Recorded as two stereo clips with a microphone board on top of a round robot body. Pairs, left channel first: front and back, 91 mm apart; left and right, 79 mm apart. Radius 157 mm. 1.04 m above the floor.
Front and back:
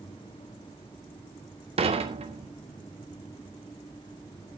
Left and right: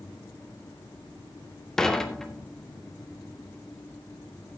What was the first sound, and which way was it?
Dishes clattering, 175° left.